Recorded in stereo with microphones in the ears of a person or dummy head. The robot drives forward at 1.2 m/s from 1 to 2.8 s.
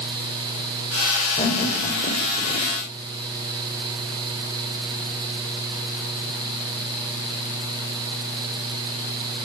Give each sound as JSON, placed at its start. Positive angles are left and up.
{"t": 1.4, "sound": "laughter", "side_deg": 35, "distance_m": 4.5}